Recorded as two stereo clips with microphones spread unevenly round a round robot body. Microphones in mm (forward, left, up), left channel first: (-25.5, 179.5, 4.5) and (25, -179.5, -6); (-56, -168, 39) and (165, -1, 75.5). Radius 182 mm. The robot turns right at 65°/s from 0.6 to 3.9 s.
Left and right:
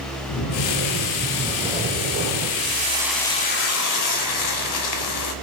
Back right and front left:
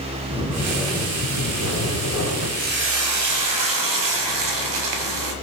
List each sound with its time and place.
0.3 s snoring: 125° left, 2 m; by 2.5 s 110° right, 2 m
2.6 s frying: 25° right, 1.2 m; by 5.3 s 60° left, 1.2 m